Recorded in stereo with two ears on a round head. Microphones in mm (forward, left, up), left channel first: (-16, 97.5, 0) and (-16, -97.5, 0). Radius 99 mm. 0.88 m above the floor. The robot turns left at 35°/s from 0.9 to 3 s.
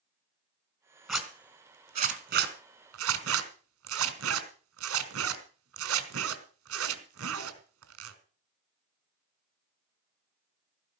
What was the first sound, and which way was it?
A zipper, centre (ahead or behind).